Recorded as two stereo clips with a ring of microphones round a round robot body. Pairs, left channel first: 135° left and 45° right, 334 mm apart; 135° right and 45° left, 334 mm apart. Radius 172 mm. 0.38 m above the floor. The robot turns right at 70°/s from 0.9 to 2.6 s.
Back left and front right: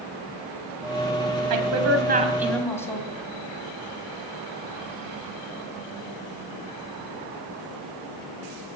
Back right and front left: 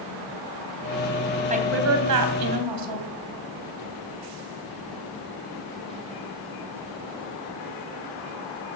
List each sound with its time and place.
1.5 s a woman speaking: 25° right, 3 m; by 3.1 s 50° left, 3 m